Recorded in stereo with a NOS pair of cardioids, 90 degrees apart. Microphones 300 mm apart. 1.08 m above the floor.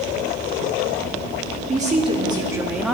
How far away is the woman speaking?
About 2 m.